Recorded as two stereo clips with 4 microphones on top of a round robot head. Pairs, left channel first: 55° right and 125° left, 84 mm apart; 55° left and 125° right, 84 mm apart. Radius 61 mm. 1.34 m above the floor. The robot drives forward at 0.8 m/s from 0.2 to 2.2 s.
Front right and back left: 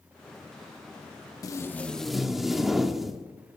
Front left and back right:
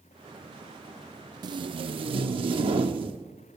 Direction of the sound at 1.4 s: 95° right.